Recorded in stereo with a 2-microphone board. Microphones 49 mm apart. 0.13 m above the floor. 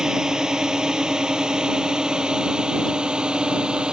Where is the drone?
10° right (ahead or behind); by 3.9 s 15° right (ahead or behind).